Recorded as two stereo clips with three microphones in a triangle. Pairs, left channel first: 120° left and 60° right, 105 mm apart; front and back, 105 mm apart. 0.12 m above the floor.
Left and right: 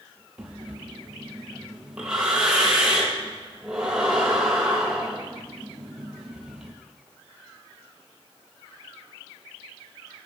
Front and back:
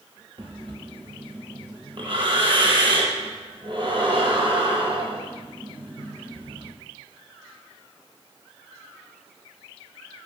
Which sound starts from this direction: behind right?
Breathing, at 0.4 s.